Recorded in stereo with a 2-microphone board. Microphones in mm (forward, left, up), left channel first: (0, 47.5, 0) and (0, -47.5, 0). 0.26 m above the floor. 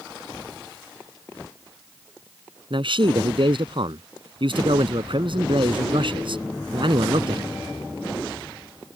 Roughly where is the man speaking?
Right.